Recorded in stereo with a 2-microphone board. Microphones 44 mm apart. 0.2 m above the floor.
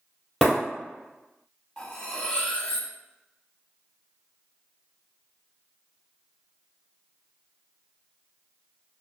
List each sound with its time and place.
0.4 s breaking glass: 5° left (ahead or behind), 1.7 m
1.8 s cutlery clinking: 20° left (ahead or behind), 0.6 m